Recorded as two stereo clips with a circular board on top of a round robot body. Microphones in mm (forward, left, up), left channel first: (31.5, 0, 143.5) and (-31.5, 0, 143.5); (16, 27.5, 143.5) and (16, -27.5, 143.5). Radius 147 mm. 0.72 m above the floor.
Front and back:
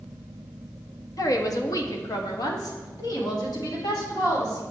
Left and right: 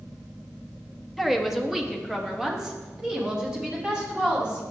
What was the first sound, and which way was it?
A woman speaking, 5° right.